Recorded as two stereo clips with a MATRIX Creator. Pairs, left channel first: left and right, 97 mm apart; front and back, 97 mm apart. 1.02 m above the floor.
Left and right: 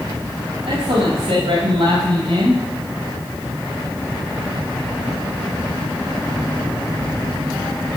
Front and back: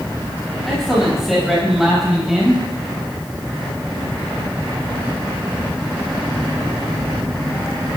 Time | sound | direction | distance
0.7 | a man speaking | 90° right | 7 m